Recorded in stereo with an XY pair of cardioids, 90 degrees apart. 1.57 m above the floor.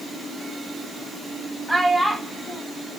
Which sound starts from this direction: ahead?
A child speaking, at 1.7 s.